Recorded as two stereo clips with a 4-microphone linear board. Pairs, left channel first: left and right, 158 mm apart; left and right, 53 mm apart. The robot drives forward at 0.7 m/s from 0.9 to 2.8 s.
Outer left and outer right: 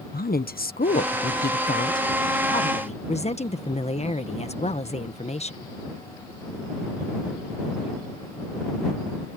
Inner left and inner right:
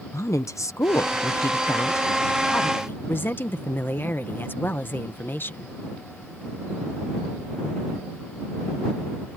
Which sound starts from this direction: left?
A woman speaking, at 0.1 s.